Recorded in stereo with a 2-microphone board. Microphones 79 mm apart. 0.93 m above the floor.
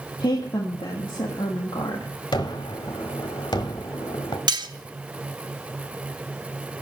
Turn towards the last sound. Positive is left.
turn(degrees=-65)  # may be behind; listen again after turning